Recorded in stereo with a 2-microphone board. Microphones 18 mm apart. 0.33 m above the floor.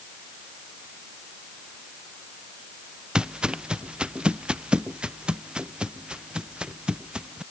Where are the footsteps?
55° right (ahead or behind); by 7.4 s 70° right (ahead or behind).